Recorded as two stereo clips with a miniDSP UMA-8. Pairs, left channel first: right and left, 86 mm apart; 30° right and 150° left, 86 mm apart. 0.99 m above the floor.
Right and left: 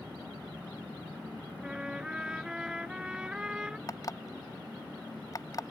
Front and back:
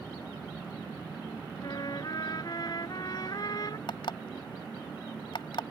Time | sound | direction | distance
1.6 | a trumpet | 10° left | ?
3.9 | an alarm clock | 45° right | ?